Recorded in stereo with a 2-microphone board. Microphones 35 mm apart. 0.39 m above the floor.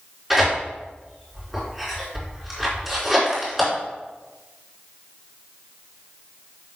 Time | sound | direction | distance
0.3 | tearing paper | 10° right (ahead or behind) | 4 m